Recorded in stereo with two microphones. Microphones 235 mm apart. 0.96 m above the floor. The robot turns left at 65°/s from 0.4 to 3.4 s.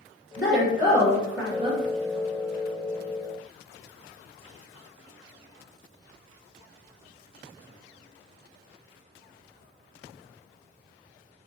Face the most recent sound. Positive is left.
turn(degrees=-145)